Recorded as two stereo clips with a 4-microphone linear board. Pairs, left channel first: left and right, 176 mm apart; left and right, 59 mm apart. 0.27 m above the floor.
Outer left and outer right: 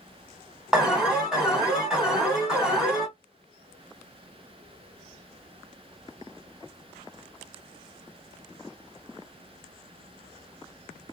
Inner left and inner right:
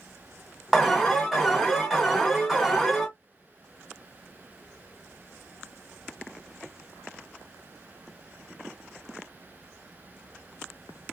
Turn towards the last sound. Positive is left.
turn(degrees=-5)  # may be behind; listen again after turning